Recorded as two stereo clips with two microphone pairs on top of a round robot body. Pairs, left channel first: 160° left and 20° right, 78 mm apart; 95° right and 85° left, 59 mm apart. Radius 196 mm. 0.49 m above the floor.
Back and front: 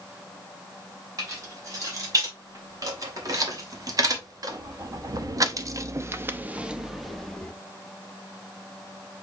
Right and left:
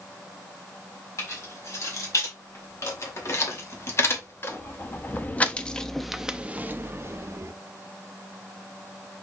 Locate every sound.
1.2 s keys jangling: 65° right, 2.5 m; by 7.5 s 85° left, 0.9 m